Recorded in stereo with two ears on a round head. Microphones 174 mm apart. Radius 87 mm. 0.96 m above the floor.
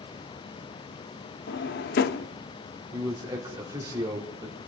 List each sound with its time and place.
1.5 s a drawer: 55° left (ahead or behind), 0.7 m
2.9 s a man speaking: 20° right (ahead or behind), 2.5 m